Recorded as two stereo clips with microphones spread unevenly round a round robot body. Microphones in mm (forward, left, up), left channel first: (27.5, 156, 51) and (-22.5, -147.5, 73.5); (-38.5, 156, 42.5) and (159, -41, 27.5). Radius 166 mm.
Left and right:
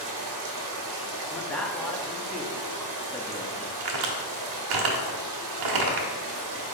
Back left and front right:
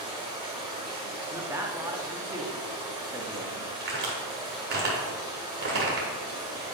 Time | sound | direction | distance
0.0 | running water | 130° right | 1.5 m
1.3 | a man speaking | 10° left | 0.9 m
3.8 | a crack | 105° right | 1.2 m